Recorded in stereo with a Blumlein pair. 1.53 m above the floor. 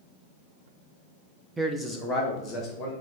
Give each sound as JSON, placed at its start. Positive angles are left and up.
{"t": 1.6, "sound": "a man speaking", "azimuth_deg": -10, "distance_m": 0.7}